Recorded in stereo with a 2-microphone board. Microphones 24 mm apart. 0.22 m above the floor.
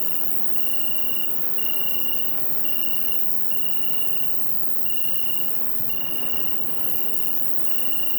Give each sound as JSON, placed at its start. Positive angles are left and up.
{"t": 0.0, "sound": "an insect", "side_deg": 5, "distance_m": 2.0}